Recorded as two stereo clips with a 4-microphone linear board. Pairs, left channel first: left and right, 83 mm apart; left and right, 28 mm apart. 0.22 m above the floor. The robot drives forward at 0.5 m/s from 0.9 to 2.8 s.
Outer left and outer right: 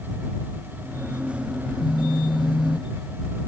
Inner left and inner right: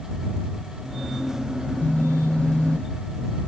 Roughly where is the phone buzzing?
Left.